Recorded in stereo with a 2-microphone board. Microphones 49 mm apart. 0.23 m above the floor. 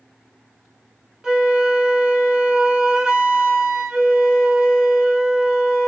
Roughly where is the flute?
Centre.